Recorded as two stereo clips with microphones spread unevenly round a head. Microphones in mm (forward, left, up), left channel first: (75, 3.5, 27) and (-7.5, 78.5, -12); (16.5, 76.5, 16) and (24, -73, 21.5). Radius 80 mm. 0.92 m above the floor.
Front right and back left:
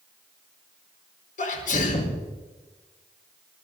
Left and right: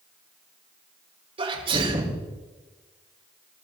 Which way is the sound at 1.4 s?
30° right.